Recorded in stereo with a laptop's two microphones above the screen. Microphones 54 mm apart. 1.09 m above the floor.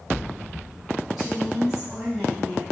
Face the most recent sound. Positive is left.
turn(degrees=-15)  # may be behind; listen again after turning